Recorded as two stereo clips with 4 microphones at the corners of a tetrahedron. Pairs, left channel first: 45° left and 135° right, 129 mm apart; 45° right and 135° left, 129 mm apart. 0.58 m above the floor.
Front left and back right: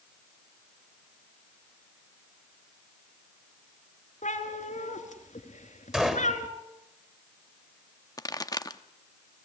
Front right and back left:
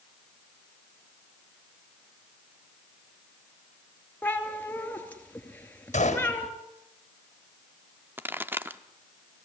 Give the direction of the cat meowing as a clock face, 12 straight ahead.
11 o'clock.